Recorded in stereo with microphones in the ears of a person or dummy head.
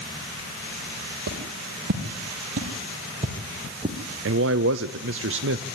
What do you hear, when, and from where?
1.3 s footsteps: 65° right (ahead or behind), 3.5 m; by 4.0 s 25° right (ahead or behind), 3 m
4.2 s a man speaking: 65° right (ahead or behind), 0.6 m